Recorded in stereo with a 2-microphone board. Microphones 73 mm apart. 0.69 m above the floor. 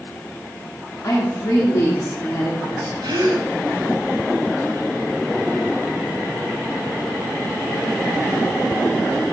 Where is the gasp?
80° right, 1.7 m.